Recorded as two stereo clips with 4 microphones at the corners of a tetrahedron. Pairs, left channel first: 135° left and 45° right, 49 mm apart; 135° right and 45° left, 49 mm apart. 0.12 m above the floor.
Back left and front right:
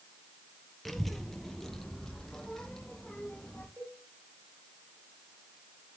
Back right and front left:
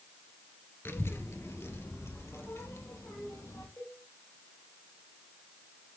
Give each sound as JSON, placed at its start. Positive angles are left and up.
{"t": 0.8, "sound": "a child speaking", "azimuth_deg": -140, "distance_m": 1.6}
{"t": 3.8, "sound": "a cowbell", "azimuth_deg": -100, "distance_m": 9.5}